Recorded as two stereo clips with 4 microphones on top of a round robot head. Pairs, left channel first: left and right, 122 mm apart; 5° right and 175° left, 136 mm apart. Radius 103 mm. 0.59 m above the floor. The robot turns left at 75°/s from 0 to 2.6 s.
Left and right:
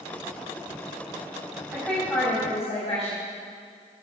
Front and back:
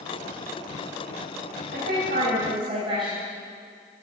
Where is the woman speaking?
165° right, 5 m; by 3.2 s 130° left, 5 m.